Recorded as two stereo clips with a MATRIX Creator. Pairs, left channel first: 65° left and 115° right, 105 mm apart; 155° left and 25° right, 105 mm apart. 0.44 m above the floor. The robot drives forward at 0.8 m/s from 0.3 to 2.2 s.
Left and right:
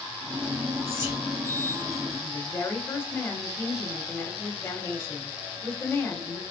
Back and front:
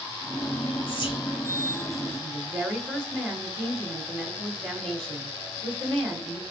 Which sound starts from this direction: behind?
Whispering, at 0.9 s.